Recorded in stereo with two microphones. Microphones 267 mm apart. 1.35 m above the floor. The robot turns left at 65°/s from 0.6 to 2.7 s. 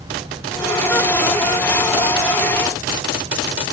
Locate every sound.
Only background noise.